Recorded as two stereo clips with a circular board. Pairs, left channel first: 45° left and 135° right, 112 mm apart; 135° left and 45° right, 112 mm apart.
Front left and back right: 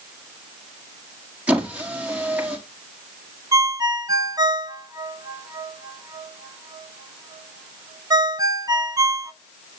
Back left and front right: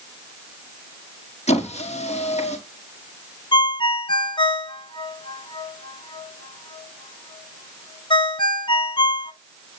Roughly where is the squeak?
Behind left.